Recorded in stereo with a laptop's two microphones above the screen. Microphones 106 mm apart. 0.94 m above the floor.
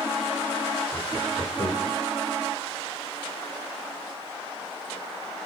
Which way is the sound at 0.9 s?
60° left (ahead or behind).